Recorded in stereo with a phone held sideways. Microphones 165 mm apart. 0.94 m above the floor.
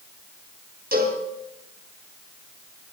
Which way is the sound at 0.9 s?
65° right (ahead or behind).